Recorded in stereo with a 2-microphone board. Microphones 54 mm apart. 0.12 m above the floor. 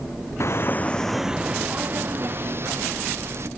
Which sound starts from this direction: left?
Footsteps, at 0.4 s.